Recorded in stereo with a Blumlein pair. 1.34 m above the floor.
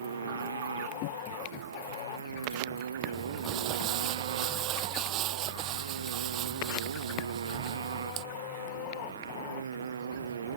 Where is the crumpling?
35° right.